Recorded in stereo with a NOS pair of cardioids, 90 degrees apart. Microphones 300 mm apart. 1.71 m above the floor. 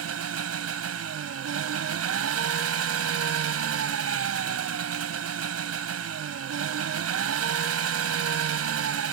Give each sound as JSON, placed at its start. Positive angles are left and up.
{"t": 0.0, "sound": "an engine running", "azimuth_deg": -55}